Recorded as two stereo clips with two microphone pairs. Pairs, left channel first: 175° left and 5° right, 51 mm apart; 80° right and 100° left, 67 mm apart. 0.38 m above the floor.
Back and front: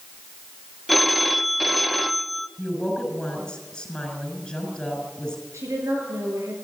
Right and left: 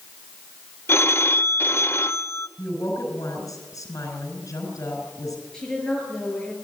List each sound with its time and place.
0.9 s a phone ringing: 95° right, 0.6 m
2.6 s a woman speaking: 110° right, 5.5 m
5.5 s a woman speaking: straight ahead, 7.5 m